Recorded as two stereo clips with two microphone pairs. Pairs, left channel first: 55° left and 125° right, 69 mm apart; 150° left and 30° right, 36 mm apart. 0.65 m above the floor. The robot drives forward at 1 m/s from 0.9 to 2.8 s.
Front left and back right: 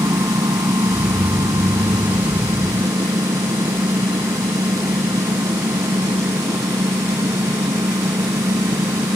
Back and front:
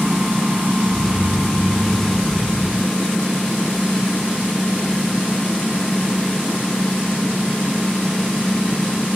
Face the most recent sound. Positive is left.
turn(degrees=-135)